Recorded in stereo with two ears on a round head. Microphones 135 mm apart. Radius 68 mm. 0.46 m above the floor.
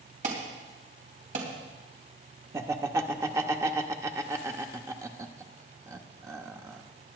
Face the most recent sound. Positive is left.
turn(degrees=-20)  # may be behind; listen again after turning